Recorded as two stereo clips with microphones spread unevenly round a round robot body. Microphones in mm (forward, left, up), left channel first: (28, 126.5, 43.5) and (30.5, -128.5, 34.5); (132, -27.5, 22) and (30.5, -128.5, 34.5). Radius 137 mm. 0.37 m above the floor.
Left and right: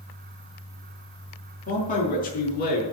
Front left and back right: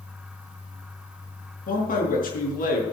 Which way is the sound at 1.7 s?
30° left.